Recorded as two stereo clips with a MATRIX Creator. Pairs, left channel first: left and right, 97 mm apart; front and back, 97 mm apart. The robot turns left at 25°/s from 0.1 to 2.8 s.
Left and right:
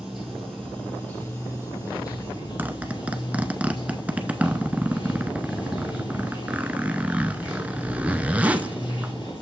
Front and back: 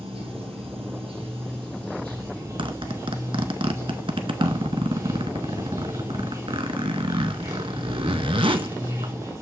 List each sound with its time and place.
0.0 s running water: 175° right, 2.5 m; by 9.4 s 120° left, 2.5 m
2.6 s a zipper: 160° right, 0.7 m; by 9.1 s 165° right, 0.7 m